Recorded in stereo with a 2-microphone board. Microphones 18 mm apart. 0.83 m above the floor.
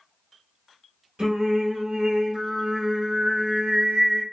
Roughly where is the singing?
Right.